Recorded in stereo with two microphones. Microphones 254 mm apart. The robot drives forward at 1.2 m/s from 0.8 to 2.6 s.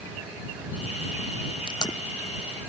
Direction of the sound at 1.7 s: 20° left (ahead or behind).